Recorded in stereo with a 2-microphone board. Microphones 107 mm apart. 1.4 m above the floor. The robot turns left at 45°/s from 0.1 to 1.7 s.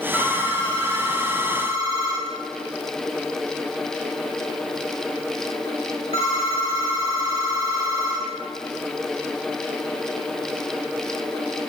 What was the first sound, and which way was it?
A phone ringing, 10° right (ahead or behind).